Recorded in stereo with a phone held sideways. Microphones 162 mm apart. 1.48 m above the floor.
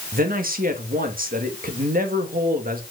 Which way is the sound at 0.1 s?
65° right (ahead or behind).